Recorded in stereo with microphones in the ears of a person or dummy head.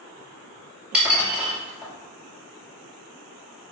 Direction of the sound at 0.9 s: 5° right (ahead or behind).